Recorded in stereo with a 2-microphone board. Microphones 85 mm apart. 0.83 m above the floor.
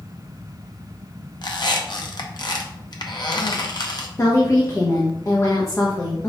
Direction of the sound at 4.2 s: 40° left (ahead or behind).